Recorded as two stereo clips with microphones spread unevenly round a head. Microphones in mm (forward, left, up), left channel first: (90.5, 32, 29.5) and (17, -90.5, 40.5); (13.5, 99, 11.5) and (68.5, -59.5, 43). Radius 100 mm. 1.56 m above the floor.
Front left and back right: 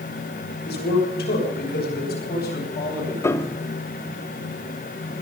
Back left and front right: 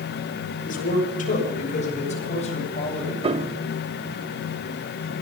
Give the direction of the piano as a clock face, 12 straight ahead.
12 o'clock.